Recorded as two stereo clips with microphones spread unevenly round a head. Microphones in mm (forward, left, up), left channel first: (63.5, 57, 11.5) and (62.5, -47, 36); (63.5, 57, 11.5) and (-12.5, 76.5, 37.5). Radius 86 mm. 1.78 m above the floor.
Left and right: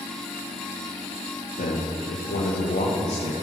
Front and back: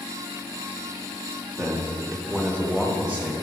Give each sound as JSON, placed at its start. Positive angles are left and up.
{"t": 1.6, "sound": "a man speaking", "azimuth_deg": 70, "distance_m": 1.6}